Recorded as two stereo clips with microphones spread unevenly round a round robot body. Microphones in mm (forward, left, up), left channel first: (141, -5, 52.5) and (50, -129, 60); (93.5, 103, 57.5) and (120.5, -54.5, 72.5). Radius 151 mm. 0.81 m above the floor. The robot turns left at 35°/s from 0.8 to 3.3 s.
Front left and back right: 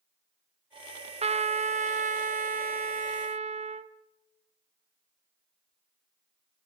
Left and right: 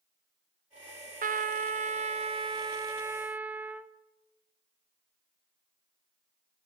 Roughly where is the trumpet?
Right.